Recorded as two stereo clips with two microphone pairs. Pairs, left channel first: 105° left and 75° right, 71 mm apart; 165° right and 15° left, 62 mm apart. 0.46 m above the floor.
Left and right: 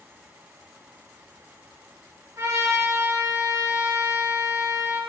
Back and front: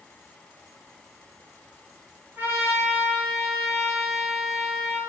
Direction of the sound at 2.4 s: 35° right.